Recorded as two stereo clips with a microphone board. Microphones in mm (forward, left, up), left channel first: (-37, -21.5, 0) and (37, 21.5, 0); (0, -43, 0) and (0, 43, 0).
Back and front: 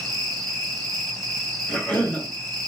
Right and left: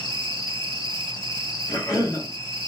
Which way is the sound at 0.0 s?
65° right.